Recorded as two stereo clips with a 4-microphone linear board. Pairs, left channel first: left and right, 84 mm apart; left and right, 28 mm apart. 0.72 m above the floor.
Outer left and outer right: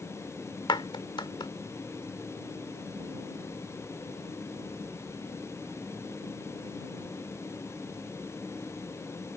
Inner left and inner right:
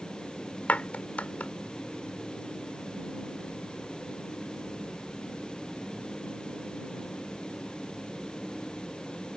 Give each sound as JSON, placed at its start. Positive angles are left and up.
{"t": 0.7, "sound": "a clap", "side_deg": 70}